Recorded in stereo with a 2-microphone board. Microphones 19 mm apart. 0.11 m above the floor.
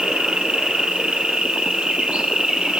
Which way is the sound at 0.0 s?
60° right (ahead or behind).